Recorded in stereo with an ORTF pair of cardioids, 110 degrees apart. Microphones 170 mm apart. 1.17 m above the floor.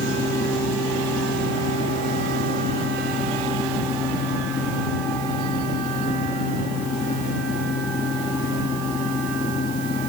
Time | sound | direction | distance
0.0 | a fan | 60° left | ?